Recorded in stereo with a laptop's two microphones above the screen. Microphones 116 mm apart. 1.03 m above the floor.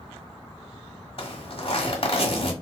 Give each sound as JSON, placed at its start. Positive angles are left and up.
{"t": 1.2, "sound": "a zipper", "side_deg": 50, "distance_m": 1.1}